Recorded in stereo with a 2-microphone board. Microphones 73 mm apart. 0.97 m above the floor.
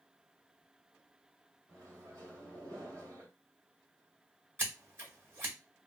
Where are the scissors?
35° right (ahead or behind), 2.0 m.